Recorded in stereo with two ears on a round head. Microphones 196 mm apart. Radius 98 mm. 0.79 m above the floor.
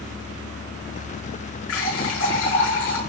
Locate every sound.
1.7 s a running tap: 65° left (ahead or behind), 5.5 m